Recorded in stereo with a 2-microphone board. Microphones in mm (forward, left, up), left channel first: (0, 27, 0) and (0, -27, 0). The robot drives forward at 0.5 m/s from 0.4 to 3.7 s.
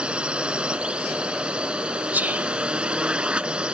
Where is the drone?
20° right (ahead or behind).